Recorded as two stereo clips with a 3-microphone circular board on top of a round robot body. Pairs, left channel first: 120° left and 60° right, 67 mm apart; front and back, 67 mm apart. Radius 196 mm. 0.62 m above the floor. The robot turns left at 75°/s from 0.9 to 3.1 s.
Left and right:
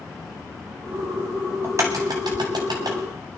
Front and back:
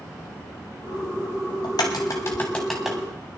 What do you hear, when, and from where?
1.6 s a crack: 5° right, 0.7 m; by 3.0 s 105° right, 0.7 m